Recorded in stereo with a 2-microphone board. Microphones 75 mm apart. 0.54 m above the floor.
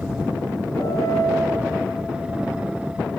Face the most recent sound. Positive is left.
turn(degrees=55)  # may be behind; listen again after turning